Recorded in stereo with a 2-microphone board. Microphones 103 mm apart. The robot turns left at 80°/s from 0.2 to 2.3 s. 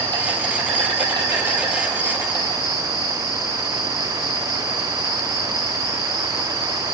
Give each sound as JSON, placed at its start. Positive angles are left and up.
{"t": 0.0, "sound": "an insect", "azimuth_deg": -55, "distance_m": 3.0}